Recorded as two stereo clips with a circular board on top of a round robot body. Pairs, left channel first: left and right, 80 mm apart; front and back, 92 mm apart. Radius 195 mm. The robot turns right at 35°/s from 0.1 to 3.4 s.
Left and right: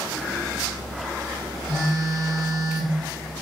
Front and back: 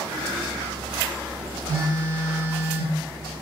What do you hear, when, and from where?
1.7 s a phone buzzing: 155° right, 1.2 m; by 3.0 s 110° right, 1.2 m